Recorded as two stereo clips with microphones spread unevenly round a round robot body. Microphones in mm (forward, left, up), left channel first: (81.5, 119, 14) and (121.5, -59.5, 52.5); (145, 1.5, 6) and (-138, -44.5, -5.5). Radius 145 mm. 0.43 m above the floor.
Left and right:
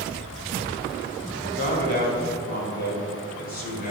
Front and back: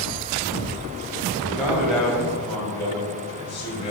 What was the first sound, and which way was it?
A man speaking, 110° left.